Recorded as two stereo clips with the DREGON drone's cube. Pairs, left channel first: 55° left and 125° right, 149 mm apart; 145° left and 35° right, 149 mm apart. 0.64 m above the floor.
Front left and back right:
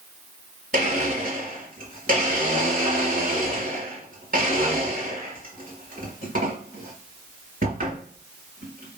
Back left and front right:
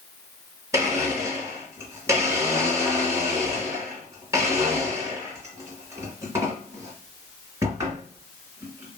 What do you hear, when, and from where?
0.7 s a blender: 105° right, 2 m